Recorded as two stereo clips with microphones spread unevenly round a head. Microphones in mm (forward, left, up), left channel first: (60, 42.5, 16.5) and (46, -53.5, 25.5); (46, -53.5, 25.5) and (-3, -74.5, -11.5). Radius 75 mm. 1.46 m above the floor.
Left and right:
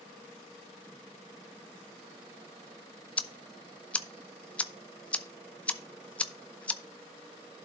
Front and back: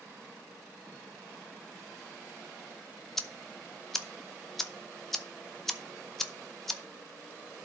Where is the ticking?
5° left, 0.7 m.